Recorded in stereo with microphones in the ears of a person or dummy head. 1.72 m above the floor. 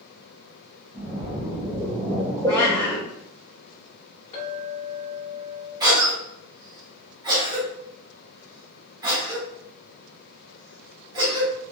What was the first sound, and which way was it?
A splash, 10° right (ahead or behind).